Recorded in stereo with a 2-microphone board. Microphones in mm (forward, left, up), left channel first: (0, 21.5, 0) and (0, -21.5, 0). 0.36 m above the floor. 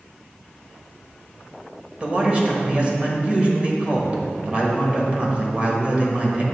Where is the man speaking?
30° right (ahead or behind), 1.3 m.